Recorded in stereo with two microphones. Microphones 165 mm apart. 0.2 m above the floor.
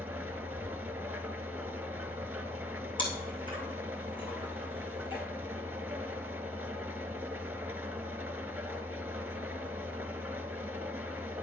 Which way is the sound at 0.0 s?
15° right (ahead or behind).